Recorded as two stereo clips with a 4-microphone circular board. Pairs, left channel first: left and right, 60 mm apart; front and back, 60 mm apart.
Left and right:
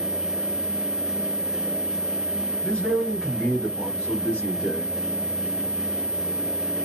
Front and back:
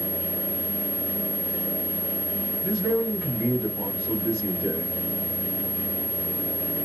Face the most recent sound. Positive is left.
turn(degrees=-105)